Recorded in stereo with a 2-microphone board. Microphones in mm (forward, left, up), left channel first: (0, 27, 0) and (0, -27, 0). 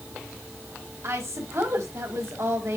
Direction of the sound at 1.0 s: 65° right (ahead or behind).